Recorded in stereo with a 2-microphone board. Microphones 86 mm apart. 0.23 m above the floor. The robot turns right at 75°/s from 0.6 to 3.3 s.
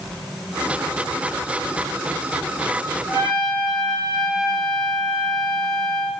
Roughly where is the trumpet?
Left.